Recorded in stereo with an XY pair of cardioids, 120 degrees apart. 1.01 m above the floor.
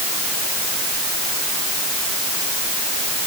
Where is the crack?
I don't hear a crack.